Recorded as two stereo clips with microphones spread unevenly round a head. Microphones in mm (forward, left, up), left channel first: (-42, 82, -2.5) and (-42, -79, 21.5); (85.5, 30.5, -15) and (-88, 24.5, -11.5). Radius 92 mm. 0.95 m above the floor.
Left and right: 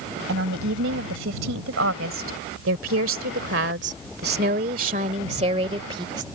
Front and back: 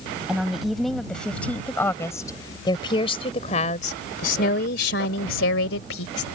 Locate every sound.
0.3 s a woman speaking: 90° right; by 6.2 s 20° right